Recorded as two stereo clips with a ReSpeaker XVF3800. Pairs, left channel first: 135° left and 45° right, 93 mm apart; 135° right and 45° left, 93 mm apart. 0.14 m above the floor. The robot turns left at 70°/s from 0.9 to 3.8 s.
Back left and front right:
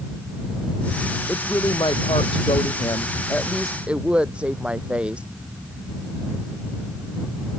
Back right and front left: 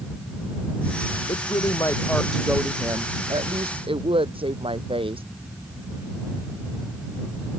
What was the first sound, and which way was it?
A woman speaking, 150° right.